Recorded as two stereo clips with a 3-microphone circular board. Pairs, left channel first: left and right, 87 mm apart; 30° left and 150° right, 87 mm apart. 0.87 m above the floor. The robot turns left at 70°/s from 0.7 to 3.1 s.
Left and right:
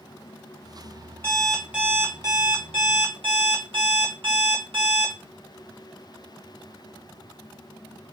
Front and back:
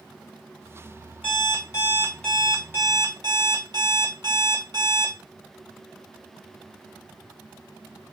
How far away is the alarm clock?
About 1.3 m.